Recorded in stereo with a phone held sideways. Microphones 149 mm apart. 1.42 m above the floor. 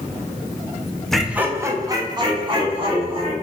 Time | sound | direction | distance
1.1 | laughter | 5° left (ahead or behind) | 0.5 m